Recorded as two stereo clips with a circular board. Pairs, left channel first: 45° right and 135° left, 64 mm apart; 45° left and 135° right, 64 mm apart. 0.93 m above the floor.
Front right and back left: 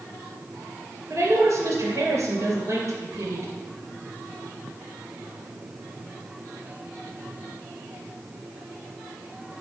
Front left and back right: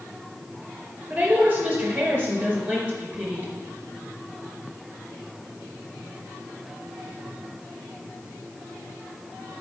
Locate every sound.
1.1 s a woman speaking: 160° left, 3.5 m